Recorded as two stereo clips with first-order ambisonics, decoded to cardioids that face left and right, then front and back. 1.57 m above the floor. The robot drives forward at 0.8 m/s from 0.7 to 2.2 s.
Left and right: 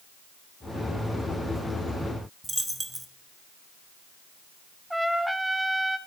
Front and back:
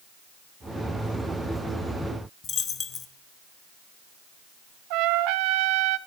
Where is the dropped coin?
10° right, 0.9 m.